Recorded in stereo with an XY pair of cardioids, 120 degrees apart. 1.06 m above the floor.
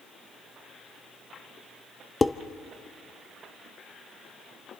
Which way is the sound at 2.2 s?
20° left.